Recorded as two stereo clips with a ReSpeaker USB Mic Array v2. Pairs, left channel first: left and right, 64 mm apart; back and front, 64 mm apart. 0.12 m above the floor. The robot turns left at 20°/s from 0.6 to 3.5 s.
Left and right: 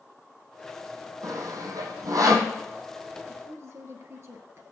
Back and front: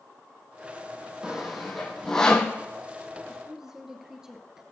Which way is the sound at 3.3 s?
75° right.